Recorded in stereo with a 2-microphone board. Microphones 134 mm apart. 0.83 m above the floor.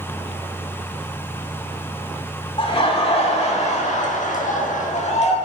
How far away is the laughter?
About 2.5 m.